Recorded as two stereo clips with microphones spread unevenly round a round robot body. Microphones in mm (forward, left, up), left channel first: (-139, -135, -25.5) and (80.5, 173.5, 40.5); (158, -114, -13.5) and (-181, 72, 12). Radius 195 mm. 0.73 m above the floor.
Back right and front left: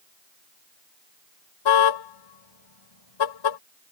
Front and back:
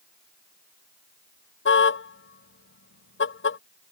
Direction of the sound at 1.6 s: 90° right.